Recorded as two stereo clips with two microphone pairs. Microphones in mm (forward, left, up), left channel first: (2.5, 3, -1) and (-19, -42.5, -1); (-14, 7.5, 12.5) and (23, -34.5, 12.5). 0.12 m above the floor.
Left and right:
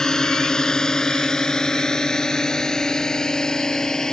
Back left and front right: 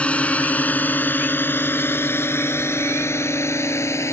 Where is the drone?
120° left; by 4.1 s 140° left.